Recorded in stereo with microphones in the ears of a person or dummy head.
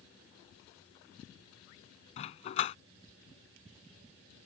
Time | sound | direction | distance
2.2 | a dog barking | 35° left (ahead or behind) | ?